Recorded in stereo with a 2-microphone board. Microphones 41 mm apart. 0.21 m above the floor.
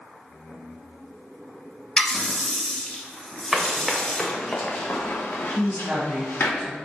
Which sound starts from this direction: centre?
Running footsteps, at 3.5 s.